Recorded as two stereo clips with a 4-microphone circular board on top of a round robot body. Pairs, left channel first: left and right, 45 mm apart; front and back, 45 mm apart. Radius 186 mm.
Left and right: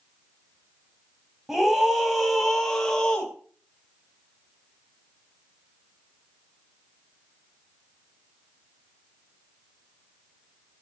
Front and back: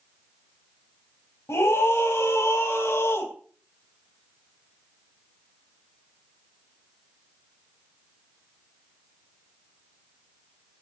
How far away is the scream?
About 4 m.